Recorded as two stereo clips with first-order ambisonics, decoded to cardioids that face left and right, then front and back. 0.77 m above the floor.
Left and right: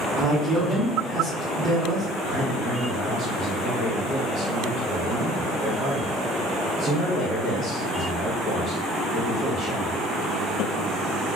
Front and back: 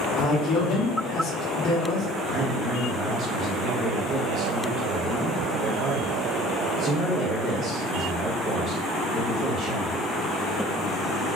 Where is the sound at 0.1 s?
35° right, 0.8 m.